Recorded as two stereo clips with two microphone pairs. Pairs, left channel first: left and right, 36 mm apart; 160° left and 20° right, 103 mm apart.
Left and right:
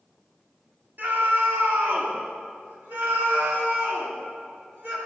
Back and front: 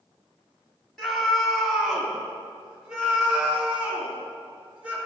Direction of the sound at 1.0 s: 110° right.